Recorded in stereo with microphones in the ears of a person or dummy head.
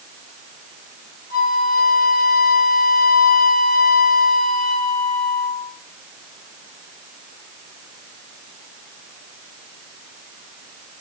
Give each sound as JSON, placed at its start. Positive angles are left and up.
{"t": 1.3, "sound": "a flute", "side_deg": 50, "distance_m": 3.5}